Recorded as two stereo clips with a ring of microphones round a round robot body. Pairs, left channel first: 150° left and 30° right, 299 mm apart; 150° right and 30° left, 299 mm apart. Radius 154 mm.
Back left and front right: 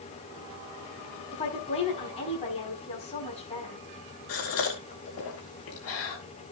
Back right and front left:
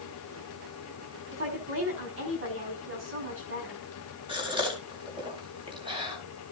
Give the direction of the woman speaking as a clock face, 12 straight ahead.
9 o'clock.